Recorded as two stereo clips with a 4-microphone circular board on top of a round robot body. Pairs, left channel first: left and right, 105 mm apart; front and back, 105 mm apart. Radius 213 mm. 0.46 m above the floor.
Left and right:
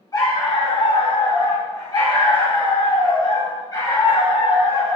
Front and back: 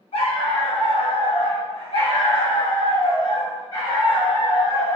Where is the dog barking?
30° left, 1.3 m; by 5.0 s 35° left, 4 m.